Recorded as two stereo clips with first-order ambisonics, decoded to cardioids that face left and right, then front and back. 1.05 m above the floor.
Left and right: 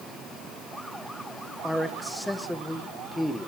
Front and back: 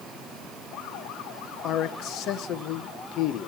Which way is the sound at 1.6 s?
5° left.